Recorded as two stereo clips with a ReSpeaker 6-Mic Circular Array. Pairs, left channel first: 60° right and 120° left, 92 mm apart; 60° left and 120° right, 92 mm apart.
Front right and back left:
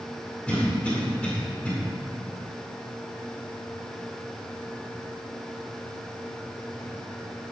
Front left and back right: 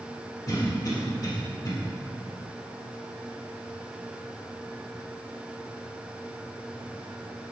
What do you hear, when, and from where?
0.5 s a cough: 20° left, 2.5 m